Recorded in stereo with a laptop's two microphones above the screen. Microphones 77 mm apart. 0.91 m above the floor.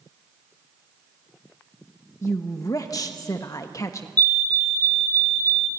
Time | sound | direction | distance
2.2 | a woman speaking | 35° left (ahead or behind) | 1.2 m
4.2 | a fire alarm | 20° left (ahead or behind) | 1.3 m